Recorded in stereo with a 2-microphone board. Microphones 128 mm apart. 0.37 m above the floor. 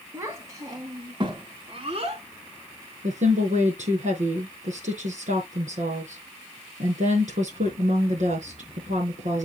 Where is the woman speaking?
75° right (ahead or behind), 5 m.